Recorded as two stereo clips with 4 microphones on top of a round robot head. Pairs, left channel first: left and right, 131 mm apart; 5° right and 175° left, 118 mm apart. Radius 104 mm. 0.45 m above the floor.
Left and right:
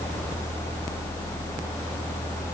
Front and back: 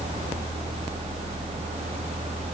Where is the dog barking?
No dog barking in this recording.